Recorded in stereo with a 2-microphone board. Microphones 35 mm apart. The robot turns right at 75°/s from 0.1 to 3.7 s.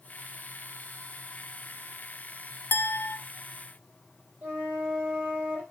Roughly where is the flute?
Right.